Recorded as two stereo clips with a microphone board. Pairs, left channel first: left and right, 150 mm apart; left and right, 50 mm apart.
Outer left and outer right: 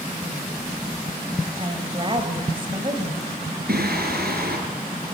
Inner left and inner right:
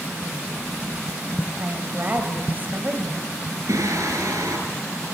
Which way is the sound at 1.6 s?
35° right (ahead or behind).